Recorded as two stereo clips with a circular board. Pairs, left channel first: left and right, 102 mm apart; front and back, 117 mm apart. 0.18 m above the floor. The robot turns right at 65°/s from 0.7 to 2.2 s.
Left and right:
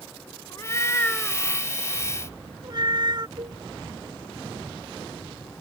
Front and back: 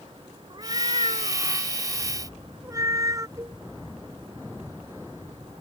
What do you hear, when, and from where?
0.5 s a cat meowing: 140° left; by 3.3 s 125° right
3.4 s a cowbell: 120° right